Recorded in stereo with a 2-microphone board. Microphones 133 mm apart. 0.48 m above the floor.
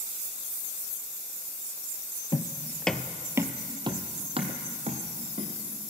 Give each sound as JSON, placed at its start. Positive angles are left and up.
{"t": 2.3, "sound": "footsteps", "side_deg": 35, "distance_m": 0.7}